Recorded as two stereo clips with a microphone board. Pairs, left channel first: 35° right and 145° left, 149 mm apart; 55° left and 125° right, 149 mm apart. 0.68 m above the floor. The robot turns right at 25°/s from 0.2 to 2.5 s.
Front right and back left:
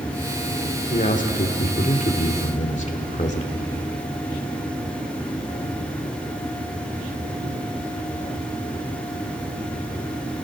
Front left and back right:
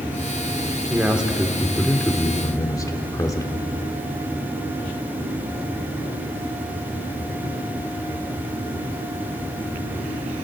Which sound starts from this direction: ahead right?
A man speaking, at 0.9 s.